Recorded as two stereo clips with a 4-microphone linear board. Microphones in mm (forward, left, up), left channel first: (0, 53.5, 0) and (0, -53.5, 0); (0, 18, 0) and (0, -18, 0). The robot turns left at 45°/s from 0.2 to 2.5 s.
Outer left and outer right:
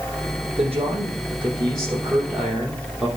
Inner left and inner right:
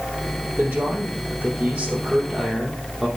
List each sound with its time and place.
0.6 s a man speaking: 85° right, 4.5 m; by 3.1 s 170° right, 4.5 m